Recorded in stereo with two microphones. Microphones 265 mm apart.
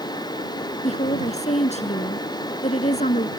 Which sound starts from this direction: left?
A woman speaking, at 0.8 s.